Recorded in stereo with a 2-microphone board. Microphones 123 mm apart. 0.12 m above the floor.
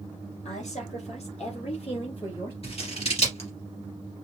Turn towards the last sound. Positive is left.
turn(degrees=50)  # may be behind; listen again after turning